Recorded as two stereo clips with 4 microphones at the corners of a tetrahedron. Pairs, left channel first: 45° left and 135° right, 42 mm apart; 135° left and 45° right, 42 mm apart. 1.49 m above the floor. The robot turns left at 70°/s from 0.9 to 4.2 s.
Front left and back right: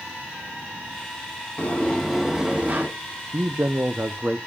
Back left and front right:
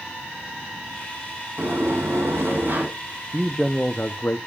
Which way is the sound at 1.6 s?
Straight ahead.